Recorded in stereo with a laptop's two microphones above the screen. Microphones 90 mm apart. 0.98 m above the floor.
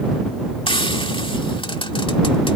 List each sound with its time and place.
0.7 s frying: 75° left (ahead or behind)